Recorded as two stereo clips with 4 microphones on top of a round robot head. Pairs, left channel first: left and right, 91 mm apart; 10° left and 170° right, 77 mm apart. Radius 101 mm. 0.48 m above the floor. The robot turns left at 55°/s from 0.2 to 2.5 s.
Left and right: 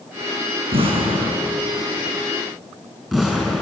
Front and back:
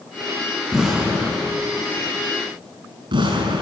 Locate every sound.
0.7 s an explosion: 75° right, 6.5 m; by 3.6 s 175° right, 6.5 m